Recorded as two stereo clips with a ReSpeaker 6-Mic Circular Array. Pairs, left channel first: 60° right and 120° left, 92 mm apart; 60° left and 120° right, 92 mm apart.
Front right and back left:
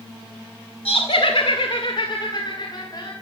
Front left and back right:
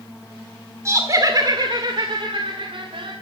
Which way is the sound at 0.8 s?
60° right.